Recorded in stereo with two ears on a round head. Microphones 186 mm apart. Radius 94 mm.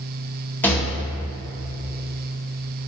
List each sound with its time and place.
0.6 s a rattle: 10° left (ahead or behind), 1.3 m